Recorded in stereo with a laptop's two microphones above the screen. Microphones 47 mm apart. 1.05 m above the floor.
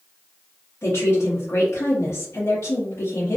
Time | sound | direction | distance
0.8 | a woman speaking | 75° left (ahead or behind) | 1.3 m